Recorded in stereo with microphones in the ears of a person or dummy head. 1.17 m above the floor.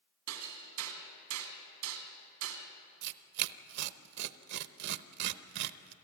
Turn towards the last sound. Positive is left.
turn(degrees=-60)  # may be behind; listen again after turning